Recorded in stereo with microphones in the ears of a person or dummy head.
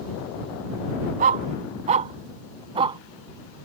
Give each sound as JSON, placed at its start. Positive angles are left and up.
{"t": 1.2, "sound": "a dog barking", "side_deg": -40}